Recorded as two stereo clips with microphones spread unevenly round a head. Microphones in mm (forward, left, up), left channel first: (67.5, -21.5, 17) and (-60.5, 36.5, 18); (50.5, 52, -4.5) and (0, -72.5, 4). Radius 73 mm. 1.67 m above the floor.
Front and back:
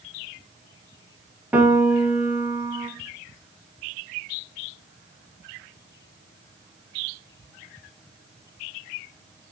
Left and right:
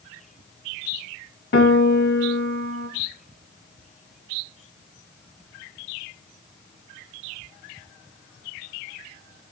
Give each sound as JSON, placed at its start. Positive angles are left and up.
{"t": 1.5, "sound": "a piano", "azimuth_deg": 75, "distance_m": 1.8}